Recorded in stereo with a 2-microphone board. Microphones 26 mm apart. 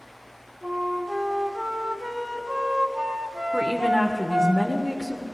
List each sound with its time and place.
0.6 s a flute: 30° right (ahead or behind), 1.6 m
3.5 s a woman speaking: 15° left (ahead or behind), 1.1 m